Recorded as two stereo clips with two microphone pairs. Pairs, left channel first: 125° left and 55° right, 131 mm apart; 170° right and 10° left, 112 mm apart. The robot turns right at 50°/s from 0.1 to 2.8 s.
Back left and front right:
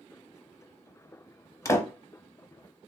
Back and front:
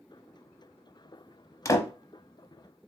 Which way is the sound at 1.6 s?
165° left.